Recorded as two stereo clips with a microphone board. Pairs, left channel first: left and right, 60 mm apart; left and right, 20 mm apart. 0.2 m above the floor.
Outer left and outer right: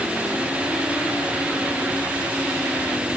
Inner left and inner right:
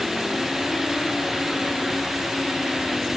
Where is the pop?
No pop in this recording.